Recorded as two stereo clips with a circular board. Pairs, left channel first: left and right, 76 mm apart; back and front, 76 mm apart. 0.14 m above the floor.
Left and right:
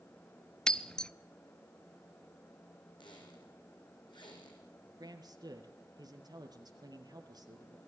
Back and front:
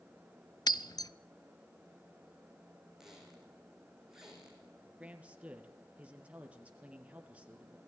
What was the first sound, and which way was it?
Breaking glass, 170° left.